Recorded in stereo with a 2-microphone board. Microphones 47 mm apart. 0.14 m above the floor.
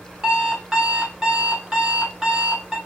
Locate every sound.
0.2 s an alarm clock: 15° right (ahead or behind), 1.0 m